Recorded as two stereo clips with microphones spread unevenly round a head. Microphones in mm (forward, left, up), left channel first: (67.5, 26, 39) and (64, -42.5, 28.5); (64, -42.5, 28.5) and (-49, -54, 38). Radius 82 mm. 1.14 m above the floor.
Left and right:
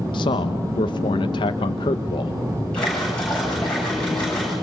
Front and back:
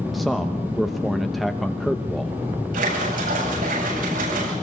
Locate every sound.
0.1 s a man speaking: 95° left, 0.8 m
2.7 s a splash: 170° left, 8.5 m